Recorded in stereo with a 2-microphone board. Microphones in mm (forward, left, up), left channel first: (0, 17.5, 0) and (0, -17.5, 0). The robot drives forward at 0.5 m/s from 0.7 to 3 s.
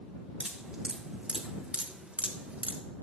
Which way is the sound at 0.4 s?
30° right (ahead or behind).